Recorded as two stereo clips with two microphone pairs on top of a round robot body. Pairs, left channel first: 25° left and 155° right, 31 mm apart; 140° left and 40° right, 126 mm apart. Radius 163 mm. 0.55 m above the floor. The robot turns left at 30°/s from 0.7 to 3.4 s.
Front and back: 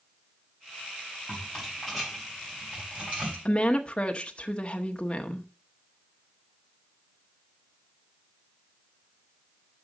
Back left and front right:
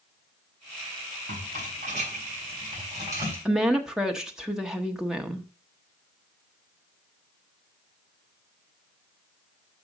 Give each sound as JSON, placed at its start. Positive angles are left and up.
{"t": 1.3, "sound": "a rattle", "azimuth_deg": -50, "distance_m": 4.0}
{"t": 3.5, "sound": "a woman speaking", "azimuth_deg": 45, "distance_m": 1.1}